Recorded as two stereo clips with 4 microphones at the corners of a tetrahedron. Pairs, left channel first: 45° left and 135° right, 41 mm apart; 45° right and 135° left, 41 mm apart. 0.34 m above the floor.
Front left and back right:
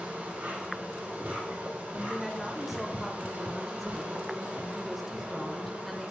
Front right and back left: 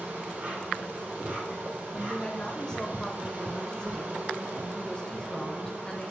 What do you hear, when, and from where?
0.0 s an insect: 175° right, 4 m
1.9 s a woman speaking: 55° right, 0.9 m